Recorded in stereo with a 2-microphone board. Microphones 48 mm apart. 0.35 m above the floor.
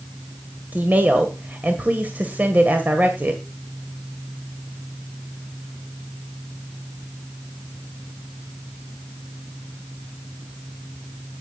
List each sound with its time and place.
0.7 s a woman speaking: 35° right (ahead or behind), 1.8 m